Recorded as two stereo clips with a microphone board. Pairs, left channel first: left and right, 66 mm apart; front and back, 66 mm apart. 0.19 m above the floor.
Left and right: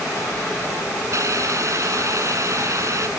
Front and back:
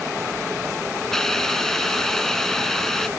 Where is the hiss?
80° right.